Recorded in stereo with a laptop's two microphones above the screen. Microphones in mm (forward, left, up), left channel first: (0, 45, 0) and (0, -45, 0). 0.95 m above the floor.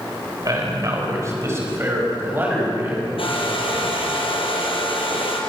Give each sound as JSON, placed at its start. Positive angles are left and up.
{"t": 0.5, "sound": "a man speaking", "side_deg": -45, "distance_m": 5.0}
{"t": 3.2, "sound": "a hair dryer", "side_deg": 80, "distance_m": 4.5}